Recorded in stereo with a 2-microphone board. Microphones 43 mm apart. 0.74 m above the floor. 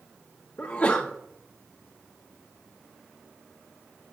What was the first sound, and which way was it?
A sneeze, 40° left (ahead or behind).